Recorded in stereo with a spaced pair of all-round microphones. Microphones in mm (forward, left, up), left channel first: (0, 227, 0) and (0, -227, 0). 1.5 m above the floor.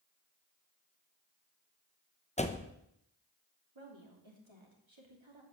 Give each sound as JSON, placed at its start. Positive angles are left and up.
{"t": 2.4, "sound": "a door slam", "side_deg": 15, "distance_m": 0.9}
{"t": 3.8, "sound": "a woman speaking", "side_deg": -80, "distance_m": 3.0}